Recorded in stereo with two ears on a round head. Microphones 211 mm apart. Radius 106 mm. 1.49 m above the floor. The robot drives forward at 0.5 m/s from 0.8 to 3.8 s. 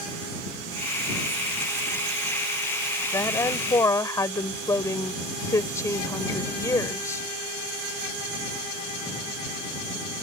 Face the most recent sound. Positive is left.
turn(degrees=15)  # may be behind; listen again after turning